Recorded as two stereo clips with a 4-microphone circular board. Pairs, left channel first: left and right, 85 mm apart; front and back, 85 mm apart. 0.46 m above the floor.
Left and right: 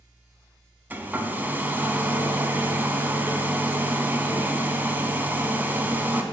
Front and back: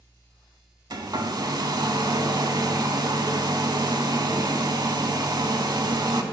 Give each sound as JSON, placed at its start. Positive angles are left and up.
{"t": 0.9, "sound": "a hair dryer", "azimuth_deg": -155, "distance_m": 0.5}